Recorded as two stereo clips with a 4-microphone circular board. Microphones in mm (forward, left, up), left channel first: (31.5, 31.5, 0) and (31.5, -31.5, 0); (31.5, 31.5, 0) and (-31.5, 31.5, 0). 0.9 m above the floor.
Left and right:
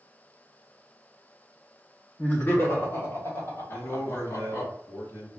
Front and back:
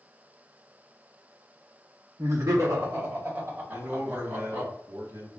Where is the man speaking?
135° left, 2 m.